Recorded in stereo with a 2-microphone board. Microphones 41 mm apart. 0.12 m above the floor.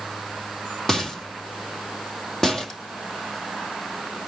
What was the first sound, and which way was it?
A rattle, 5° left (ahead or behind).